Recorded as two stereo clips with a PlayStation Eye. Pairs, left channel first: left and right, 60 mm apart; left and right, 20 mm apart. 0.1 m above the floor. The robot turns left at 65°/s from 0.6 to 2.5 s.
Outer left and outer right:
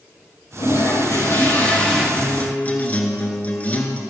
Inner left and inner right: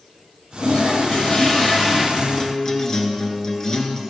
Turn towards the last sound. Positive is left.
turn(degrees=25)  # may be behind; listen again after turning